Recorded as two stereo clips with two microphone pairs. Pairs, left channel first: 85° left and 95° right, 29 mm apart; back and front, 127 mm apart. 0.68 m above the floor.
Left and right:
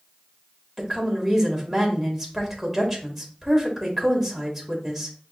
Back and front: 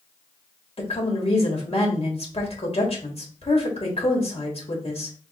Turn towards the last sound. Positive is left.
turn(degrees=180)